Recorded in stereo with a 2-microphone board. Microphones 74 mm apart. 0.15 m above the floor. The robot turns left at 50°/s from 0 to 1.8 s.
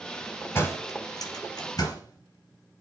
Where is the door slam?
35° left (ahead or behind), 2.5 m; by 2.8 s 60° left (ahead or behind), 2.5 m.